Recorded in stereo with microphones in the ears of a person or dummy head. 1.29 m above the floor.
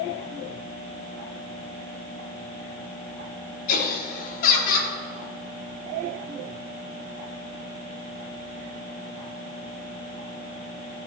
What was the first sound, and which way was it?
Laughter, 50° left (ahead or behind).